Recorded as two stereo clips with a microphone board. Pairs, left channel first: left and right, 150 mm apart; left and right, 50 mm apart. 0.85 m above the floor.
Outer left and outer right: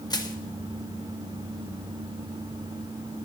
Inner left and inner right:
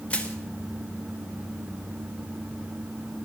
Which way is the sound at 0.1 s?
25° left (ahead or behind).